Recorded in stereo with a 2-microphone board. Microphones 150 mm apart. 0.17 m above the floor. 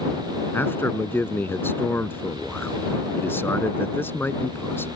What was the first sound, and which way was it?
A man speaking, 15° left (ahead or behind).